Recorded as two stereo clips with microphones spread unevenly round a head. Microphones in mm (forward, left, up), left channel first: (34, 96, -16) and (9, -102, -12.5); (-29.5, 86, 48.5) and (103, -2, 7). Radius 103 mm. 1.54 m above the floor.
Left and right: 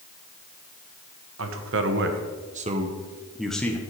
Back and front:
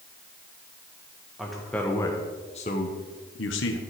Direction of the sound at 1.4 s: 125° right.